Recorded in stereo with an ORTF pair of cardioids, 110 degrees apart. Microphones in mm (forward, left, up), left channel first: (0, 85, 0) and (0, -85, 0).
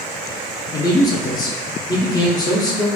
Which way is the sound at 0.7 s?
20° left.